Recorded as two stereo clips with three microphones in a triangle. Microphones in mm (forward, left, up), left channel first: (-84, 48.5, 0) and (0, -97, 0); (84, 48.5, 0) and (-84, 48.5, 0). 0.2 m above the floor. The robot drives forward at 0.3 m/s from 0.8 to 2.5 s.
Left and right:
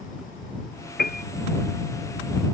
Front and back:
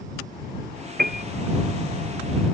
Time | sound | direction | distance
1.0 | a piano | 150° left | ?